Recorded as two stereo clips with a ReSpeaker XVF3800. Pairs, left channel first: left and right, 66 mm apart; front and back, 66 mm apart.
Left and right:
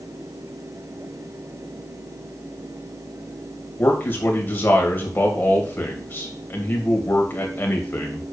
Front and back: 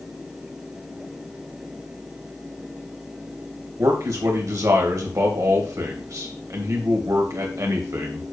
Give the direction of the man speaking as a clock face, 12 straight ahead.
7 o'clock.